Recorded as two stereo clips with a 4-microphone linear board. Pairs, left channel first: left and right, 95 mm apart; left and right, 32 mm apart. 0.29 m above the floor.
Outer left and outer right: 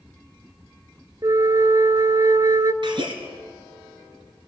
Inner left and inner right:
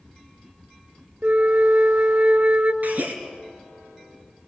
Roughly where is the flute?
Right.